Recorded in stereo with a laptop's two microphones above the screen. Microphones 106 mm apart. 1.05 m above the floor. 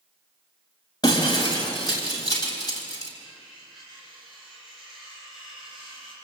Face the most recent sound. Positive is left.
turn(degrees=-5)  # may be behind; listen again after turning